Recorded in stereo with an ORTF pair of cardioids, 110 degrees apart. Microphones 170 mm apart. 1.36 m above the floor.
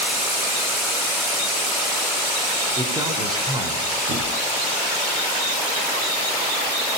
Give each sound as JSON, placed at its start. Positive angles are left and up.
{"t": 2.8, "sound": "a man speaking", "azimuth_deg": -25, "distance_m": 4.5}
{"t": 4.1, "sound": "a thud", "azimuth_deg": -60, "distance_m": 4.0}